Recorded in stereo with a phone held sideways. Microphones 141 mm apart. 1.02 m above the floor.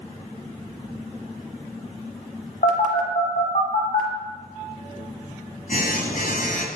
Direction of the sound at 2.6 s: 70° left (ahead or behind).